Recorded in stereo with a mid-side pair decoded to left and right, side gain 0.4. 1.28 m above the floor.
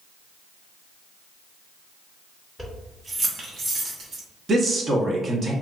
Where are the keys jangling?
15° right, 0.9 m; by 4.2 s 75° right, 1.2 m.